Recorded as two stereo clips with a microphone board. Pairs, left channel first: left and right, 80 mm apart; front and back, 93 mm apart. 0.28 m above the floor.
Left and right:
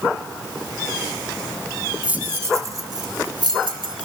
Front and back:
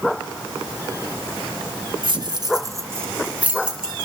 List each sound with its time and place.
2.0 s keys jangling: 160° right, 1.3 m; by 4.1 s 95° right, 2.5 m